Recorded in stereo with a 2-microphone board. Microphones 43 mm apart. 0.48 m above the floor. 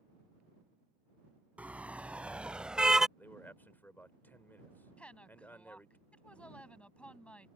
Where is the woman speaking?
25° left (ahead or behind).